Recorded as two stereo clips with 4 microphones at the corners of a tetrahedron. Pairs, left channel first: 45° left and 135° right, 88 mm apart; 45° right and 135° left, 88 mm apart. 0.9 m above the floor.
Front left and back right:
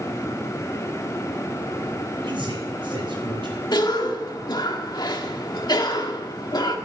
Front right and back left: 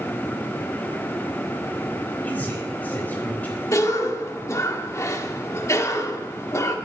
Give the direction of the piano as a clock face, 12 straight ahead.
I don't hear a piano.